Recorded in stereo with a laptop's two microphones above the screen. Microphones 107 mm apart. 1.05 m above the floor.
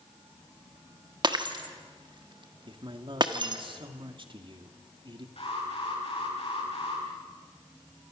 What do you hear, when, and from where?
1.2 s breaking glass: 45° right (ahead or behind), 1.3 m
2.7 s a man speaking: 50° right (ahead or behind), 1.8 m
5.4 s an alarm: 65° left (ahead or behind), 9.5 m